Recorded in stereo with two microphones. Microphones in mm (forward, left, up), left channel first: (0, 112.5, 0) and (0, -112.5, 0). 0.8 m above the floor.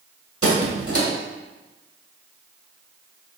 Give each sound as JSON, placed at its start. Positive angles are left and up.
{"t": 0.4, "sound": "a squeak", "side_deg": -75, "distance_m": 1.9}